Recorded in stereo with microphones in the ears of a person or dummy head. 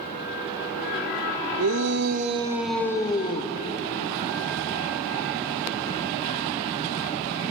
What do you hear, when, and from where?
1.6 s a shout: 70° right (ahead or behind), 1.5 m; by 3.5 s 30° left (ahead or behind), 2 m